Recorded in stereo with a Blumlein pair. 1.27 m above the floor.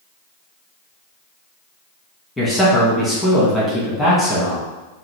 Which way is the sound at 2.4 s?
5° left.